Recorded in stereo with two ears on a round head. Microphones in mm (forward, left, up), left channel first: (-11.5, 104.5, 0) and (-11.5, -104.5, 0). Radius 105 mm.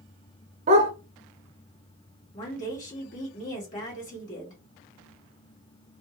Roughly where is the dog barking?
Right.